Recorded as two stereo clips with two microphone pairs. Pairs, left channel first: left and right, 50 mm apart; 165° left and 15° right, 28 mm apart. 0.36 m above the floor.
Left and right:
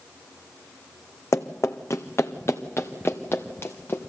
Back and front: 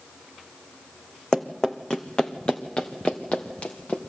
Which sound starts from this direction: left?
Running footsteps, at 1.3 s.